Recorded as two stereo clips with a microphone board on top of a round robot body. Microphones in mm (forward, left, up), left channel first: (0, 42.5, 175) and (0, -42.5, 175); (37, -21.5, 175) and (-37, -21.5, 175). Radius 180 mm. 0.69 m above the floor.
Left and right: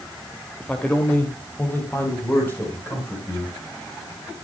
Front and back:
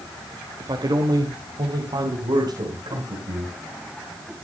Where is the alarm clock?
I don't hear an alarm clock.